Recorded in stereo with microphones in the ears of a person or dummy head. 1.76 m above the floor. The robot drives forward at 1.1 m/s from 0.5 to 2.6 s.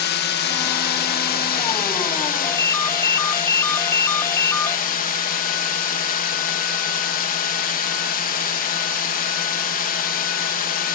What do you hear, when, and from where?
0.0 s a drone: 55° left (ahead or behind); by 10.9 s 45° left (ahead or behind)
2.4 s a ringtone: 10° left (ahead or behind); by 4.8 s 15° left (ahead or behind)